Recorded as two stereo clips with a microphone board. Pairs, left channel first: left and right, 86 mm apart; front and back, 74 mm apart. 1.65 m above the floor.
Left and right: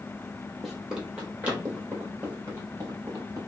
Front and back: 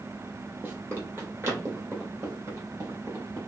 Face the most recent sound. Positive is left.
turn(degrees=-135)